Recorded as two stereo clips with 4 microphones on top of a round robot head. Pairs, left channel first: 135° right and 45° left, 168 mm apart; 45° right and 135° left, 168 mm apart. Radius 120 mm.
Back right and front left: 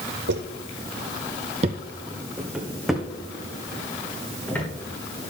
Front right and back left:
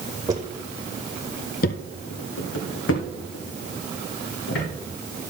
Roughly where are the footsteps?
Left.